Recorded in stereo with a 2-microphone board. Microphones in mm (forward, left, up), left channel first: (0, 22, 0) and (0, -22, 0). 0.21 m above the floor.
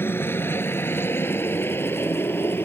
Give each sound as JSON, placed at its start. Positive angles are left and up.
{"t": 0.0, "sound": "a helicopter", "side_deg": 55}